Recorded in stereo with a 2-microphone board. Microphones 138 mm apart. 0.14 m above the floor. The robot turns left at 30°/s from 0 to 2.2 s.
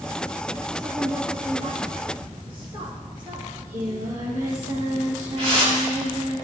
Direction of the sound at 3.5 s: 65° right (ahead or behind).